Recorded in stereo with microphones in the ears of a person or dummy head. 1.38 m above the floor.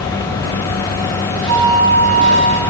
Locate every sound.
1.5 s a flute: 50° left (ahead or behind), 1.8 m